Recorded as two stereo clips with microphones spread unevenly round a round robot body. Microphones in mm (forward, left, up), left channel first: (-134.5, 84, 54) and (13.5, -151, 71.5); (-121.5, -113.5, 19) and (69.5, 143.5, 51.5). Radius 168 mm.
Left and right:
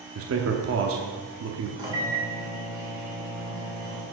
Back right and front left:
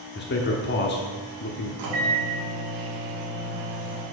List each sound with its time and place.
0.1 s a man speaking: 85° right, 1.0 m
1.8 s a microwave: 20° left, 2 m